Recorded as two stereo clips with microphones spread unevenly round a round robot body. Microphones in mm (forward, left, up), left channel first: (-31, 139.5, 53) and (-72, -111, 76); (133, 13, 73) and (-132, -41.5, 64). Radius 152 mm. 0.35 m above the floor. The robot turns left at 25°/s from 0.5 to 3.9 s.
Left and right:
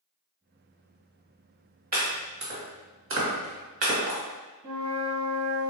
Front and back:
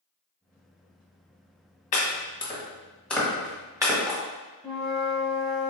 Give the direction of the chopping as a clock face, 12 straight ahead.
2 o'clock.